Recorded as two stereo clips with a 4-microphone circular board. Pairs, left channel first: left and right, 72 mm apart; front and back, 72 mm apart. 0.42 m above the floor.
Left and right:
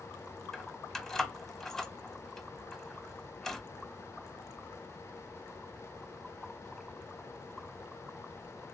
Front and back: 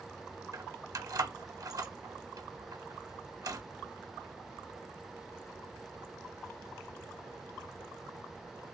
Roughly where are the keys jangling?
Behind.